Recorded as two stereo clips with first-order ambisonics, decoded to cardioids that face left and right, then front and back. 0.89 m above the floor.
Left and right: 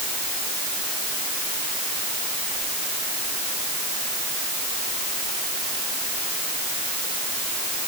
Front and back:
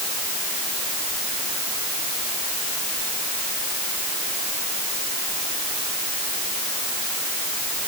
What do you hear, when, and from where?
Only background noise.